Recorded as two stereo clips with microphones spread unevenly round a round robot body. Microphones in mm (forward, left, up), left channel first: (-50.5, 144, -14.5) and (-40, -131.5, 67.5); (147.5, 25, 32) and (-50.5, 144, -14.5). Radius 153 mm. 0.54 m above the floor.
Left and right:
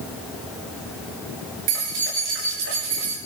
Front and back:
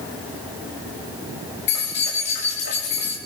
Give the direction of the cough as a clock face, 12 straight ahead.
No cough in this recording.